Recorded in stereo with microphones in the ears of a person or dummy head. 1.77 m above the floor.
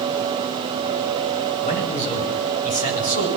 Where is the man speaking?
35° left (ahead or behind), 9 m; by 3.3 s 40° left (ahead or behind), 8.5 m.